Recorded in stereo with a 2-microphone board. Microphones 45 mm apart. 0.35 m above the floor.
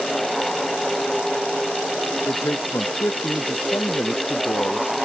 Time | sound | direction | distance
2.3 | a man speaking | 75° left (ahead or behind) | ?